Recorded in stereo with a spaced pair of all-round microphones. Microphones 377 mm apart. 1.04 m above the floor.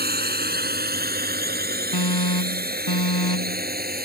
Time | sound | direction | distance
0.0 | a drone | 25° right (ahead or behind) | ?
1.9 | an alarm | 80° left | ?